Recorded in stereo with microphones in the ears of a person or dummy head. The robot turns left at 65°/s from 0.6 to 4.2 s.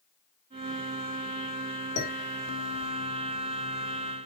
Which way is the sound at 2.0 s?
75° left (ahead or behind).